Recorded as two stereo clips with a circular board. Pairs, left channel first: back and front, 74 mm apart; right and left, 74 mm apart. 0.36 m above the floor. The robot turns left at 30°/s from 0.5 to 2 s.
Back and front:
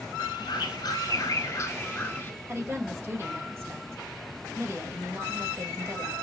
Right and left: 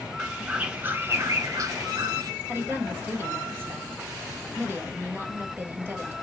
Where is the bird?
165° left, 0.7 m; by 2.3 s 120° left, 0.7 m.